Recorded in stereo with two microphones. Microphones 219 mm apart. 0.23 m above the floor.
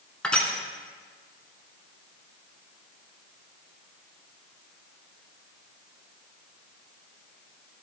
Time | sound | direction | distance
0.2 | crushing | 5° left (ahead or behind) | 1.5 m